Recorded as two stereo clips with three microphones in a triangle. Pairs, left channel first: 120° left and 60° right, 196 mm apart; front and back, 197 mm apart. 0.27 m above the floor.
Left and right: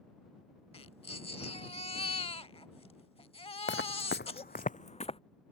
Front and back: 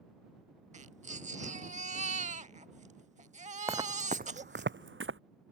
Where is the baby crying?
160° left.